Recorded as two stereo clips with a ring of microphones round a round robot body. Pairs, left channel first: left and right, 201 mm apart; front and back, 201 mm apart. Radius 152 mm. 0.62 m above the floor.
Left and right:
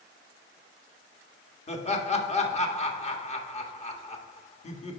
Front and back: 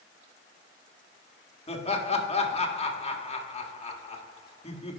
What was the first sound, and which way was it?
Laughter, 45° left.